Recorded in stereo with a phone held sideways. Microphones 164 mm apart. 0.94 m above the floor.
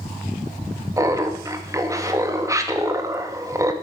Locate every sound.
1.0 s laughter: 20° right (ahead or behind), 1.6 m